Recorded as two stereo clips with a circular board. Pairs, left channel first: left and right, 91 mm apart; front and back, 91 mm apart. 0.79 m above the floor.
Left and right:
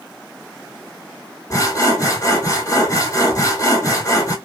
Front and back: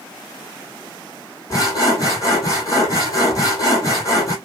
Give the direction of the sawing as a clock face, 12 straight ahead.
11 o'clock.